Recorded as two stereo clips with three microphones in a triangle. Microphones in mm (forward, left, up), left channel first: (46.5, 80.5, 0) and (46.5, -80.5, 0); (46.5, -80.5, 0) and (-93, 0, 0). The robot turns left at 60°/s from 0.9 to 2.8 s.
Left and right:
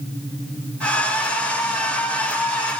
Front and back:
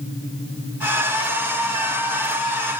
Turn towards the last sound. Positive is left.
No sound to turn to.